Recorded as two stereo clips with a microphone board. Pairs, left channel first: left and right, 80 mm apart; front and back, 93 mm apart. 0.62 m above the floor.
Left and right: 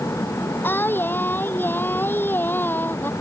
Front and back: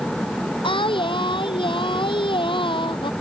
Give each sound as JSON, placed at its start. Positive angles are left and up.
{"t": 0.6, "sound": "singing", "azimuth_deg": 25}